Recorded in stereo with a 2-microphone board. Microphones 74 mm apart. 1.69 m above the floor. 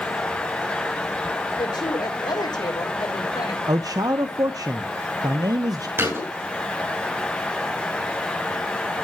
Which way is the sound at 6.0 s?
35° right (ahead or behind).